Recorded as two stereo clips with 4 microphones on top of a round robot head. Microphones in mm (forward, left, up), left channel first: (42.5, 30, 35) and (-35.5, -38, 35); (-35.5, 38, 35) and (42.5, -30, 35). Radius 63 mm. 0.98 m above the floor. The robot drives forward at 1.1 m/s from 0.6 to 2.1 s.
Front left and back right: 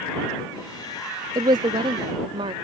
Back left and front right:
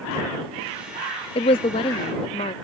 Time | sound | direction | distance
1.4 | a woman speaking | 170° left | ?